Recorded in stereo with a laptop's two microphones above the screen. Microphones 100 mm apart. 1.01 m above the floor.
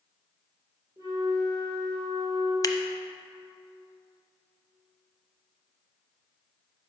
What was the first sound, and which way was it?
A flute, 40° right (ahead or behind).